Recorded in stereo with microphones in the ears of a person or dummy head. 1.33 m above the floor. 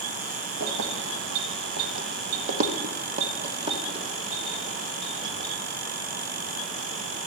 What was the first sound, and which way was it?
Keys jangling, 50° right (ahead or behind).